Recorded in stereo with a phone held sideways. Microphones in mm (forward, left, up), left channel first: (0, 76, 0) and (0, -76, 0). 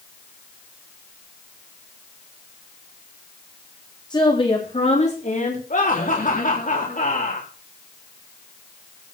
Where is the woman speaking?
30° left (ahead or behind), 3.5 m; by 5.6 s 60° left (ahead or behind), 4 m.